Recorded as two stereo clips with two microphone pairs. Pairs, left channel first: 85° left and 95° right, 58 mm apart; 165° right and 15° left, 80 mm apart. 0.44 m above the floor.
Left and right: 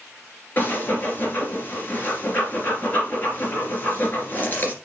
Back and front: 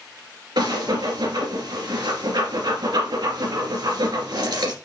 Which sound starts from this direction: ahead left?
Breathing, at 0.6 s.